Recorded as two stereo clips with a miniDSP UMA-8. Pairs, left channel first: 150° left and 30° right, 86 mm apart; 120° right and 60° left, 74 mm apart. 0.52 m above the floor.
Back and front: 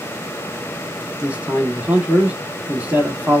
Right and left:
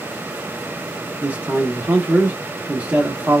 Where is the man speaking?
20° left, 0.8 m.